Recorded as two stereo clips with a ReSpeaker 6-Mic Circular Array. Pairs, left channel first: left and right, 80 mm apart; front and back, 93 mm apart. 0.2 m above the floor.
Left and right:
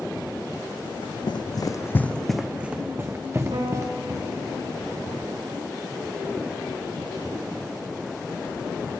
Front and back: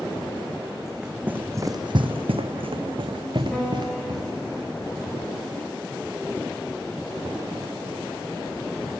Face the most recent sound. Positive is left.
turn(degrees=-90)